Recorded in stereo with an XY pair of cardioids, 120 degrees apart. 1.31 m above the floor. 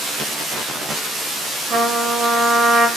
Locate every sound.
1.7 s a trumpet: 45° right, 2.5 m